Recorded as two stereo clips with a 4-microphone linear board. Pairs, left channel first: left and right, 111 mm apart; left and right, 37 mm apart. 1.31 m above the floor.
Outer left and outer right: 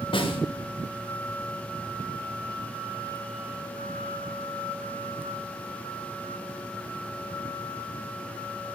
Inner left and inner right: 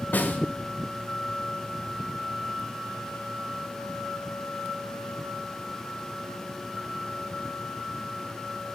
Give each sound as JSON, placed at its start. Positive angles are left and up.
{"t": 0.1, "sound": "a snare drum", "side_deg": 55, "distance_m": 1.6}